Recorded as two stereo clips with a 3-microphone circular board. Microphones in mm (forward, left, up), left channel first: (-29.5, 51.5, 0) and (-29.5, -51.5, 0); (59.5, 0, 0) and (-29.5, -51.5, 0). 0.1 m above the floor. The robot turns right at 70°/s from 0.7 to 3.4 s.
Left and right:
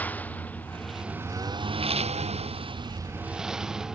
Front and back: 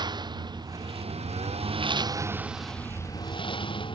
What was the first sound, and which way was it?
A lawn mower, 165° left.